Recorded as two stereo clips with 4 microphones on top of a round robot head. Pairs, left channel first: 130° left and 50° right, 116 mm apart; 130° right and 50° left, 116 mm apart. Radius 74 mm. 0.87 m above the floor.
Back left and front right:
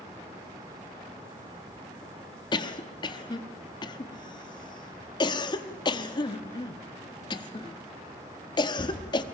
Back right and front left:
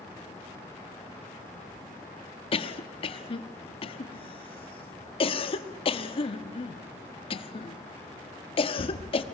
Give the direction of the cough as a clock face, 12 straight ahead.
6 o'clock.